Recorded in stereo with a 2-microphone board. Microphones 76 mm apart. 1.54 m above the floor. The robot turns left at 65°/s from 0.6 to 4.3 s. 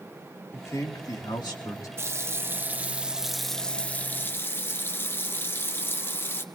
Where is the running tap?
90° right, 0.7 m; by 6.4 s 120° left, 0.7 m.